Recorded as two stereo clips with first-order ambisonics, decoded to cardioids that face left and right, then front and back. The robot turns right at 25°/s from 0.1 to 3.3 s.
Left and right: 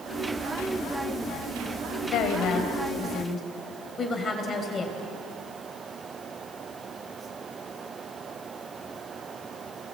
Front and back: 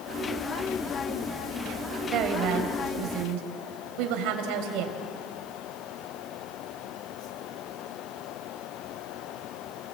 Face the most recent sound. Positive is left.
turn(degrees=160)